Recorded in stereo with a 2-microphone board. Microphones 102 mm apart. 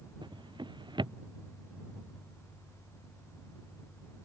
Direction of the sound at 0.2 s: 50° right (ahead or behind).